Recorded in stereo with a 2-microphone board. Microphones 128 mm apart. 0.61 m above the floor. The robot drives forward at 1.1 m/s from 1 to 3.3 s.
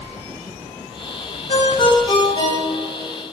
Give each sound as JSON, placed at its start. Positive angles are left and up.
{"t": 1.5, "sound": "a ringtone", "side_deg": 55, "distance_m": 1.4}